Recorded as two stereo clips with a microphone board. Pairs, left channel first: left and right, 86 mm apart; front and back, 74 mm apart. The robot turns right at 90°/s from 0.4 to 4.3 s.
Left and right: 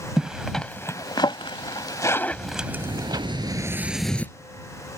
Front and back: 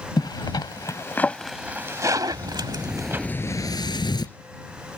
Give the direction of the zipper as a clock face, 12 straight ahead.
12 o'clock.